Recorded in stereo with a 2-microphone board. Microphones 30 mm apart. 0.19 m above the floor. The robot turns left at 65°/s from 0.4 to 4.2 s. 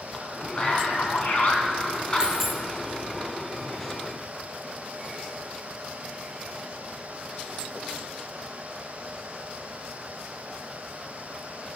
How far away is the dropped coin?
About 0.8 m.